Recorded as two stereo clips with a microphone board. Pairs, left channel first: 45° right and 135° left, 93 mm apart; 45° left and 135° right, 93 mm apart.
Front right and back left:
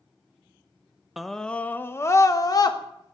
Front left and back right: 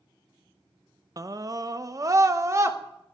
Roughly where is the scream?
Behind right.